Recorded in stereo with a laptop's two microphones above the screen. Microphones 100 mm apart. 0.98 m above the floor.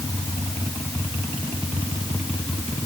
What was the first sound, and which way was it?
Only background noise.